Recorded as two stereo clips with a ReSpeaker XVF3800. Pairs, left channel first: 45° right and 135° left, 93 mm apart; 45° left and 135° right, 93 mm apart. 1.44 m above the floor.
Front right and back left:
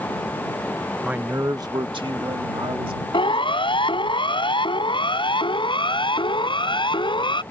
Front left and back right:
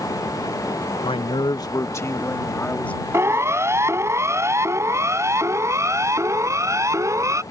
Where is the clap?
I don't hear a clap.